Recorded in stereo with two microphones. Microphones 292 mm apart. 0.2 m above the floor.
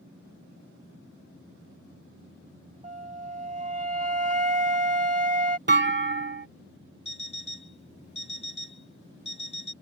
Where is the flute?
25° right (ahead or behind).